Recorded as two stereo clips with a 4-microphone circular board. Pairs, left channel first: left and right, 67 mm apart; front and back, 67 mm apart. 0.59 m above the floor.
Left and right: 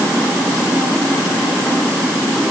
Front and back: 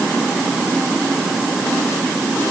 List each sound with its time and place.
Only background noise.